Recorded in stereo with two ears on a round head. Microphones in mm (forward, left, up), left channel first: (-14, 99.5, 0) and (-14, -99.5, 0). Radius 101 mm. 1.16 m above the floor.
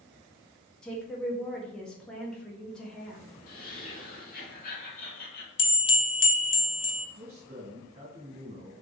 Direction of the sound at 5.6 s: 25° left (ahead or behind).